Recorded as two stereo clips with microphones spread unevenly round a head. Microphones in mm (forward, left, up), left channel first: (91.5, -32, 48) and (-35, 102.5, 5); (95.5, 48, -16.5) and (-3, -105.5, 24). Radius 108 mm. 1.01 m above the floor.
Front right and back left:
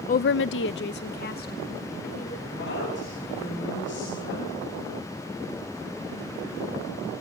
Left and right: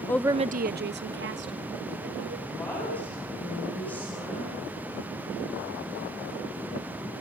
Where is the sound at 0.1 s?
5° left, 0.5 m; by 2.4 s 100° right, 3.5 m.